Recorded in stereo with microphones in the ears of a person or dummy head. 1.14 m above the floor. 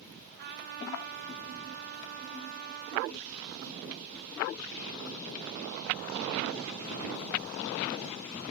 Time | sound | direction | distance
0.4 | a trumpet | 55° right (ahead or behind) | 1.2 m